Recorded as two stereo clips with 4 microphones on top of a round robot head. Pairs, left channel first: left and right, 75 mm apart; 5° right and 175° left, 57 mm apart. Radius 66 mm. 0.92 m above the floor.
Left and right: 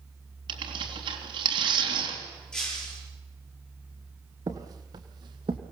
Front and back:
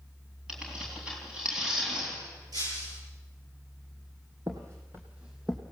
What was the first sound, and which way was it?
Tearing paper, 105° right.